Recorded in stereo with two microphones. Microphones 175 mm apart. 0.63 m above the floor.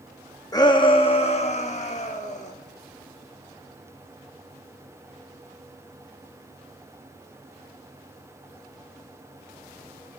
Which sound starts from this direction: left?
A shout, at 0.5 s.